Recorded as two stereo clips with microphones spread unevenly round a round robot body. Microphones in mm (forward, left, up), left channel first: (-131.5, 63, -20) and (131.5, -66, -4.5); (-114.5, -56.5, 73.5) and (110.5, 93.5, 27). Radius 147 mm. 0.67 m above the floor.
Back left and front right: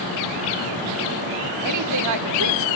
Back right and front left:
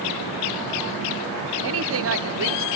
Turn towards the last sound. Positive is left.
turn(degrees=5)